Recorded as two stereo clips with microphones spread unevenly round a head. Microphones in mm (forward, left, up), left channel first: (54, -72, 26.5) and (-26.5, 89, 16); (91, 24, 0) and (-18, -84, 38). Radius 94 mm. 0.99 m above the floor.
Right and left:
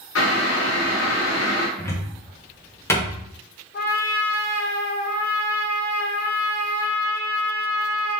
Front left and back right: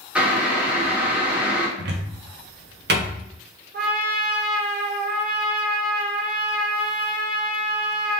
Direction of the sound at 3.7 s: 105° right.